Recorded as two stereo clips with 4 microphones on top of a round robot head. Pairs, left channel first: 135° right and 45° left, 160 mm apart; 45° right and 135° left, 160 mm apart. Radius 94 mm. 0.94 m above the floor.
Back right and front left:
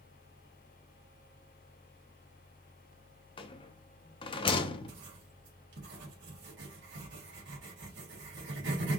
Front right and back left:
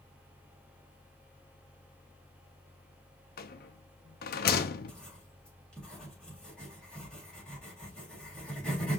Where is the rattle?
75° right, 0.7 m.